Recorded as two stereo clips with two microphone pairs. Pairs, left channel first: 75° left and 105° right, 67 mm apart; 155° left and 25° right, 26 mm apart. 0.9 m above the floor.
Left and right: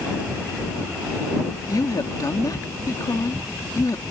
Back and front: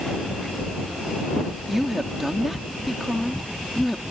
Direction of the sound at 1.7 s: 55° left.